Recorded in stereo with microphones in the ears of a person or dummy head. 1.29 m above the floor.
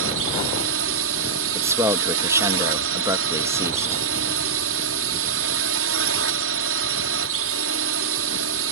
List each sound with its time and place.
0.0 s a drone: 70° right (ahead or behind)
1.6 s a man speaking: 20° right (ahead or behind)